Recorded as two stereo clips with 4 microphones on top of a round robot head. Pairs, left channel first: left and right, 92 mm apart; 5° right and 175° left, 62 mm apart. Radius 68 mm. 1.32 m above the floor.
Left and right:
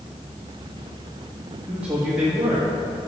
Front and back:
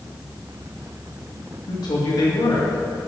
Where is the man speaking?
10° right, 2.5 m.